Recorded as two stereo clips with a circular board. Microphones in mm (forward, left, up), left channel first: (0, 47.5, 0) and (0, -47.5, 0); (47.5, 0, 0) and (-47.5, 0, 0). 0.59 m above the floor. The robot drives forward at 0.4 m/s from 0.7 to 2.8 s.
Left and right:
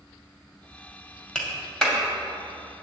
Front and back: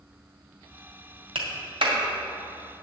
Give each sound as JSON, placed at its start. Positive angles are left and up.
{"t": 1.4, "sound": "a clap", "azimuth_deg": 170, "distance_m": 2.0}